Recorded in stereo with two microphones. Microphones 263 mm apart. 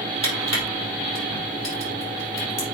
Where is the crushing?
80° left, 5.5 m.